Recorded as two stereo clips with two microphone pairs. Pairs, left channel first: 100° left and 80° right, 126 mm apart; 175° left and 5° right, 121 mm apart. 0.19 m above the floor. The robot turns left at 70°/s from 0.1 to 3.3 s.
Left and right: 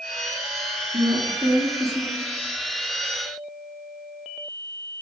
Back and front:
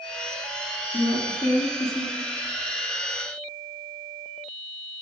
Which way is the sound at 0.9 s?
125° right.